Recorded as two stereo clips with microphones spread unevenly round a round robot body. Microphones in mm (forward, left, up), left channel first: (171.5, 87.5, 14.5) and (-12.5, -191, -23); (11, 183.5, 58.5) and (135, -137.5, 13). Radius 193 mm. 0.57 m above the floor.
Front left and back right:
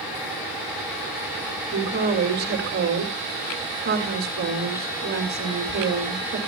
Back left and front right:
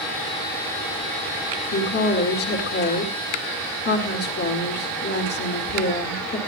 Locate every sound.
1.7 s a woman speaking: 175° left, 2 m